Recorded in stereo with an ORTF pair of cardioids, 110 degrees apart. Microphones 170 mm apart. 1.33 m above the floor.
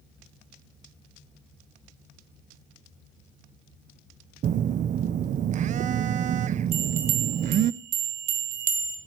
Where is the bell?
60° right, 1.9 m.